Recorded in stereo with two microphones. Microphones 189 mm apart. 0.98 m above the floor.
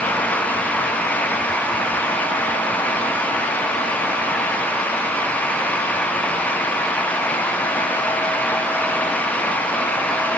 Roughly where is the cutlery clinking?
No cutlery clinking in this recording.